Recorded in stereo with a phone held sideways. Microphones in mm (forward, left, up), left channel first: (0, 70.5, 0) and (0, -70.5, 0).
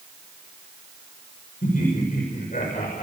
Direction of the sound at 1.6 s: 80° left.